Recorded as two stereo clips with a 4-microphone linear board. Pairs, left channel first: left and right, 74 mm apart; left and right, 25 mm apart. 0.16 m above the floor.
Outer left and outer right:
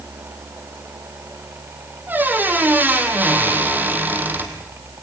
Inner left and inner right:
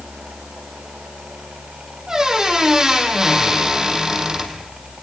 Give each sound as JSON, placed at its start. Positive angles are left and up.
{"t": 2.1, "sound": "a squeak", "side_deg": -25, "distance_m": 3.0}